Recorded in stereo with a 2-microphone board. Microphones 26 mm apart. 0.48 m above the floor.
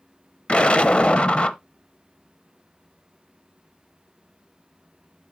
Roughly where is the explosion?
Left.